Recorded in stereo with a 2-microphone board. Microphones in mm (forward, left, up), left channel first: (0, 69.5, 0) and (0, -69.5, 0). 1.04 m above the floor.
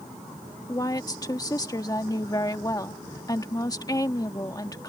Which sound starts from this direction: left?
A woman speaking, at 0.7 s.